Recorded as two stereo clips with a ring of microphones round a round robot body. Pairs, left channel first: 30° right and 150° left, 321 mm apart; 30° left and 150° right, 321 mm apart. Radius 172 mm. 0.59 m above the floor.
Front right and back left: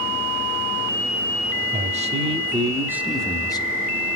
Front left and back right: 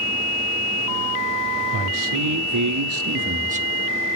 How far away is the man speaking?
About 1.6 m.